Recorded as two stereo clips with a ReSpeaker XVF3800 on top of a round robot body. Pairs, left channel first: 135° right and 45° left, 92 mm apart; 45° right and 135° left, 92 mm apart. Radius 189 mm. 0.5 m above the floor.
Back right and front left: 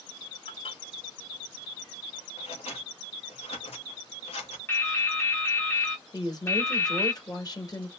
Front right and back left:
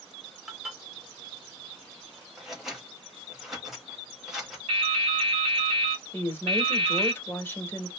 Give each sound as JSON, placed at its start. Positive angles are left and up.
{"t": 0.5, "sound": "dishes clattering", "azimuth_deg": -140, "distance_m": 1.3}
{"t": 2.4, "sound": "scissors", "azimuth_deg": -140, "distance_m": 0.8}
{"t": 4.7, "sound": "dripping", "azimuth_deg": 160, "distance_m": 0.8}
{"t": 6.1, "sound": "a woman speaking", "azimuth_deg": -105, "distance_m": 1.7}